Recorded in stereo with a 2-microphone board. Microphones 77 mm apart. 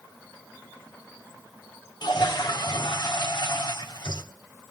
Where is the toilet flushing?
70° left (ahead or behind), 1.1 m.